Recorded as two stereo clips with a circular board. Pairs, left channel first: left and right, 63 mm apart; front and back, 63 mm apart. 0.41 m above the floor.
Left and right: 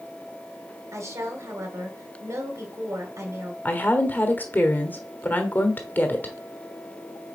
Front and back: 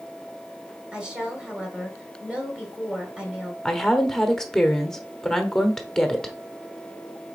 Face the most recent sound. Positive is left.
turn(degrees=75)